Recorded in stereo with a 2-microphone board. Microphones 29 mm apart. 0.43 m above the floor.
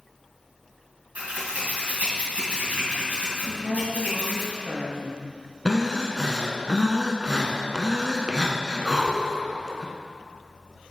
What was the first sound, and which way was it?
Scissors, 60° right (ahead or behind).